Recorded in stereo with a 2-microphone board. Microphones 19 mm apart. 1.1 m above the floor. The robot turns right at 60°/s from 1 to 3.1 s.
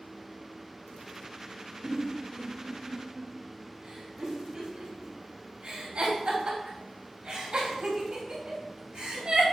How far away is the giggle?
About 2.5 m.